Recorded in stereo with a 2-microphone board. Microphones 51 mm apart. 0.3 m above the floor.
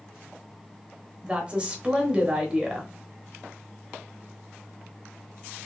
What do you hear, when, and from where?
1.2 s a woman speaking: 20° right (ahead or behind), 0.9 m